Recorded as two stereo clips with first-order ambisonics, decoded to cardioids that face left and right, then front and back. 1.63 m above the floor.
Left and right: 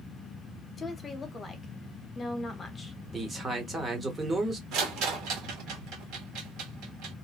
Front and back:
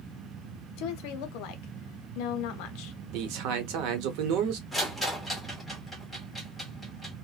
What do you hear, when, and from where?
0.8 s a woman speaking: 20° left, 0.7 m
3.1 s a man speaking: 165° right, 0.8 m
4.7 s a rattle: 95° right, 1.0 m